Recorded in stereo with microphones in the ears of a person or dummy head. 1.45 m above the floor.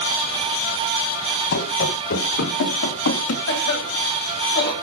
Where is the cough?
55° left (ahead or behind), 8.5 m.